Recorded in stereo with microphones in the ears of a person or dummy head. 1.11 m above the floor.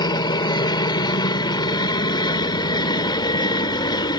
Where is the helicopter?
20° left (ahead or behind).